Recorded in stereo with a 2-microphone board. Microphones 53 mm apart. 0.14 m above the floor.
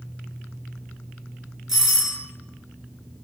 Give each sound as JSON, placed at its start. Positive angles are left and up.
{"t": 1.7, "sound": "a doorbell", "side_deg": -5, "distance_m": 1.7}